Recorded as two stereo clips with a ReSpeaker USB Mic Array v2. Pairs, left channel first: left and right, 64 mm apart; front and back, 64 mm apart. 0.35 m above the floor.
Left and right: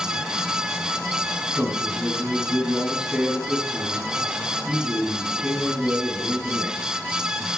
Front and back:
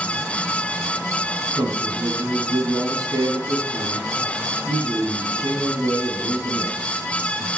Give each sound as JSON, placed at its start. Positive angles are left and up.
{"t": 1.6, "sound": "a man speaking", "azimuth_deg": -170, "distance_m": 3.0}